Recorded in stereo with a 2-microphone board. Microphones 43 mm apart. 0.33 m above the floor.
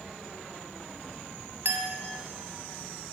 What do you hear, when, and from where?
1.6 s a clink: 65° right (ahead or behind), 1.4 m